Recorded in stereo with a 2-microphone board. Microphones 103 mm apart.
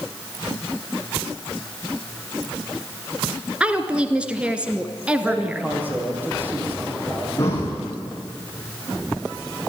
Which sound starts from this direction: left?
Breathing, at 7.4 s.